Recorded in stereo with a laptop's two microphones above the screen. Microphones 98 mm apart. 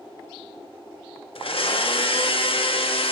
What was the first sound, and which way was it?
A blender, 65° left (ahead or behind).